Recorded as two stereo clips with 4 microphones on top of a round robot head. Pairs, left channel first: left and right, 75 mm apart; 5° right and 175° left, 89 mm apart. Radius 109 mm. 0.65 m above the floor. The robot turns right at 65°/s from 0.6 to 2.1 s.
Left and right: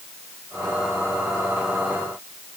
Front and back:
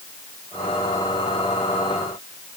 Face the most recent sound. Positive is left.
No sound to turn to.